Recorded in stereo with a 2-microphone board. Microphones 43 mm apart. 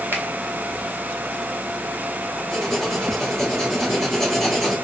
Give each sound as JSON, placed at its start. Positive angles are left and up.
{"t": 0.1, "sound": "a finger snap", "side_deg": -50, "distance_m": 1.2}
{"t": 2.5, "sound": "writing", "side_deg": 0, "distance_m": 1.6}